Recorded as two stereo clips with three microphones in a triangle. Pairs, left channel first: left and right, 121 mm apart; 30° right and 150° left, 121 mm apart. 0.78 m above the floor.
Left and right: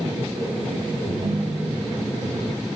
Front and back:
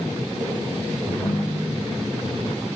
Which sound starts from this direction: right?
A ringtone, at 1.1 s.